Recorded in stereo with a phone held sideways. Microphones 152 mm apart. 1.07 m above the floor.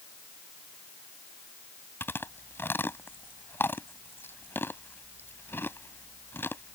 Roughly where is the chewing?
Centre.